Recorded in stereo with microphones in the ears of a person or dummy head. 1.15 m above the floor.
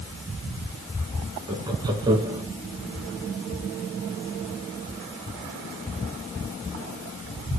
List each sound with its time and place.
1.5 s laughter: 15° right (ahead or behind), 1.6 m